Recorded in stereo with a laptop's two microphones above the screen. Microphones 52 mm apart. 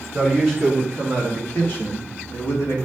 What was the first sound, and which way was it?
A man speaking, centre (ahead or behind).